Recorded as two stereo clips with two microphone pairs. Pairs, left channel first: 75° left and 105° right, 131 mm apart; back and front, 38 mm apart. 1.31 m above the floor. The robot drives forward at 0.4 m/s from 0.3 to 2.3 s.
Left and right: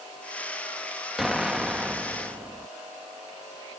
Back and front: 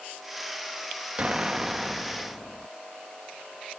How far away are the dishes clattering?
I don't hear dishes clattering.